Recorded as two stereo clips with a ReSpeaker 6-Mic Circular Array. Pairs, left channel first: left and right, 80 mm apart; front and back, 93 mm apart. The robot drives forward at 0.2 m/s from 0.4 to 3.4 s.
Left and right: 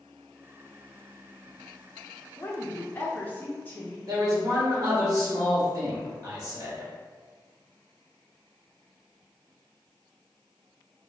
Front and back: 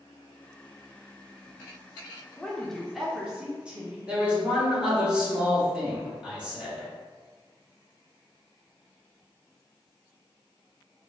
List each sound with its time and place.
2.4 s a woman speaking: 70° left, 0.6 m; by 4.0 s 115° left, 0.6 m
4.1 s a man speaking: 105° right, 1.0 m